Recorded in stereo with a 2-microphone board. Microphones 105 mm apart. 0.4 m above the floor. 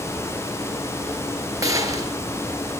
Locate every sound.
1.6 s a gunshot: 35° right (ahead or behind), 3 m